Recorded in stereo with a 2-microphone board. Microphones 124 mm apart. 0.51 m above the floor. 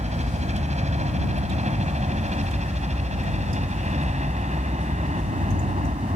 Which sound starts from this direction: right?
A helicopter, at 0.0 s.